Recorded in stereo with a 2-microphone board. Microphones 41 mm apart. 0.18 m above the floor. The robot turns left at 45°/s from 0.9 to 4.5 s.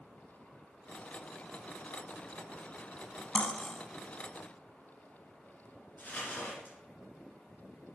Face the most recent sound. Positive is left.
turn(degrees=45)  # may be behind; listen again after turning